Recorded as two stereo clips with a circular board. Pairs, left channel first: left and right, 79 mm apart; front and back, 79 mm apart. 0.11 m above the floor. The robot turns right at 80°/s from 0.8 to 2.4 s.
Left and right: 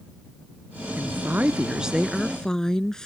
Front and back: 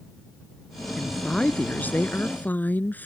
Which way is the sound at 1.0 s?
95° right.